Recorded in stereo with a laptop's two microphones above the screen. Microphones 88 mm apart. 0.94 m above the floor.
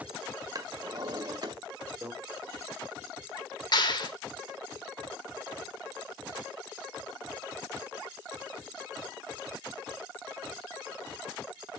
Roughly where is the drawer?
Right.